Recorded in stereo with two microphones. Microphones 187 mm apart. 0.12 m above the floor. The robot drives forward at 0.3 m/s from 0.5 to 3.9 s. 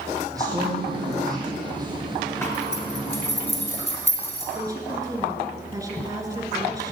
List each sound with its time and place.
0.3 s a man speaking: 20° right (ahead or behind), 5 m
2.4 s a zipper: 10° left (ahead or behind), 2 m
4.5 s a woman speaking: 20° right (ahead or behind), 1.9 m